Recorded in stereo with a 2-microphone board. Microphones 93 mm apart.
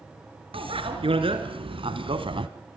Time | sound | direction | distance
0.5 | a bicycle bell | 75° right (ahead or behind) | 4 m